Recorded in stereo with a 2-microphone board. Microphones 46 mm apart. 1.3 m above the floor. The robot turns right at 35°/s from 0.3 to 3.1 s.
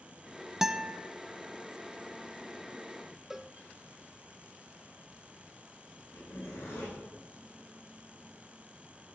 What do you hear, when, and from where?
0.6 s a guitar: 10° right (ahead or behind), 0.6 m; by 1.0 s centre (ahead or behind), 0.6 m
3.3 s a cowbell: 10° right (ahead or behind), 0.6 m
6.1 s a zipper: 70° left (ahead or behind), 7.5 m